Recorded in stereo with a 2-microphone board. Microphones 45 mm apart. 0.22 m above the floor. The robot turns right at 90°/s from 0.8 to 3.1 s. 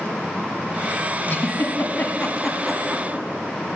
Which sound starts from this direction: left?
A giggle, at 1.3 s.